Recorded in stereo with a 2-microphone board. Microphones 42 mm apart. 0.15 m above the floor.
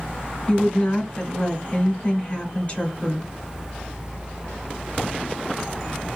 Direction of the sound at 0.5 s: 30° left (ahead or behind).